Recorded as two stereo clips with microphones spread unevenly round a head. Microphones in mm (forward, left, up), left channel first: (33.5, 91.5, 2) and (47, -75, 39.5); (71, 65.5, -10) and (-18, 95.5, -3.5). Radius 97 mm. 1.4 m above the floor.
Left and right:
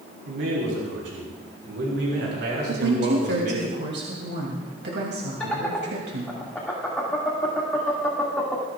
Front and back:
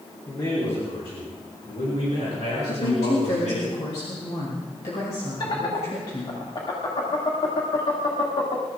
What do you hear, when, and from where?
0.3 s a man speaking: 90° right, 4 m; by 3.7 s 55° right, 8 m
2.7 s a woman speaking: 65° right, 3 m
5.4 s laughter: 10° left, 2 m